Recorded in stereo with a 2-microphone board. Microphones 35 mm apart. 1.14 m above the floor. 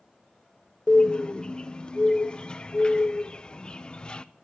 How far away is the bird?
About 0.5 m.